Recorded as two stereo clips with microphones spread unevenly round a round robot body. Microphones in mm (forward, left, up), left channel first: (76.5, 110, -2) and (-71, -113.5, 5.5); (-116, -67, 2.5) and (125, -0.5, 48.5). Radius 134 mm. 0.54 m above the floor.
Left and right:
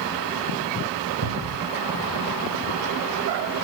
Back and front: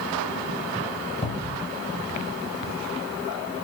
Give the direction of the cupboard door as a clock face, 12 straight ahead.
3 o'clock.